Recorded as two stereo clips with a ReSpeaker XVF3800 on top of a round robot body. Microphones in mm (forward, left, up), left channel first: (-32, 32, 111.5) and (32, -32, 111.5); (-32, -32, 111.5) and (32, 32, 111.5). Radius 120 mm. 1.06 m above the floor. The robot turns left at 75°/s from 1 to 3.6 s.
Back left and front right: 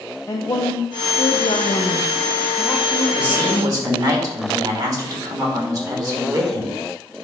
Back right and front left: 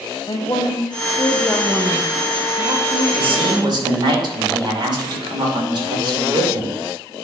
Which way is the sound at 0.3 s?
170° right.